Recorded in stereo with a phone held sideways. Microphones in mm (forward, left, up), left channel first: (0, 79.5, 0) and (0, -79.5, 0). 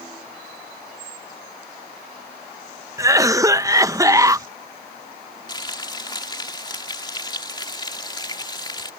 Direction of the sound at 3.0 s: 20° right (ahead or behind).